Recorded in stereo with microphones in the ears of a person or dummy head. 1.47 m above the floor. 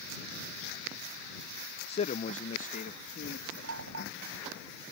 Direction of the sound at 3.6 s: 80° right.